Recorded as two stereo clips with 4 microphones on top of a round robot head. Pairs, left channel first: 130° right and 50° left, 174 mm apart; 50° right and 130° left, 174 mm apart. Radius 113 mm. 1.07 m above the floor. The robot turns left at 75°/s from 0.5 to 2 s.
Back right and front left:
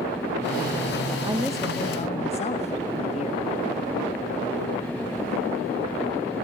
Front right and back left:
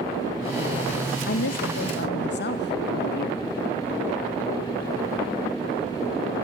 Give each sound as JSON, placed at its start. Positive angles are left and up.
{"t": 1.3, "sound": "a woman speaking", "azimuth_deg": -20, "distance_m": 1.0}